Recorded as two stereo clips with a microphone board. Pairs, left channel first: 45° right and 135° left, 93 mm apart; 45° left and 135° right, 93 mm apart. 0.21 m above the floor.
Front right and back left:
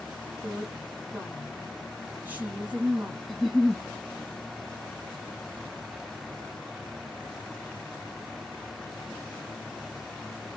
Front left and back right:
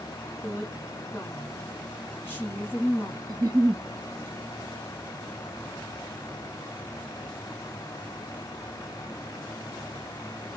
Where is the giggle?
135° right, 0.7 m.